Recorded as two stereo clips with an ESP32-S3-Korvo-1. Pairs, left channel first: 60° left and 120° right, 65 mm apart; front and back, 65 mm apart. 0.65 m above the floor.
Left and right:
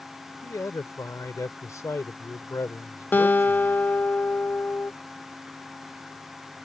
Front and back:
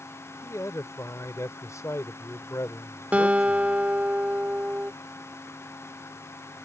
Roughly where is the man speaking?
Ahead left.